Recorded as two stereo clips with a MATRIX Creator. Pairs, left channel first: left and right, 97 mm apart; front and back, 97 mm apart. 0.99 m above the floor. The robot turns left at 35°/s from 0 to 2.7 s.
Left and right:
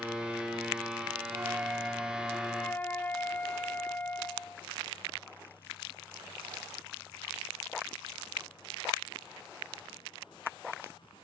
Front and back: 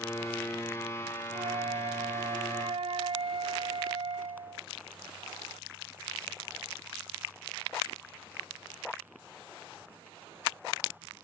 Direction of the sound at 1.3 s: 150° right.